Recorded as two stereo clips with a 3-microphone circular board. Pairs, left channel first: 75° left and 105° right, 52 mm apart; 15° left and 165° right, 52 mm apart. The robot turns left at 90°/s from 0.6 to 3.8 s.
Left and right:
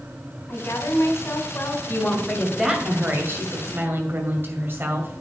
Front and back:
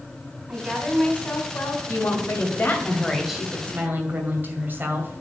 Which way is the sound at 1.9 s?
45° left.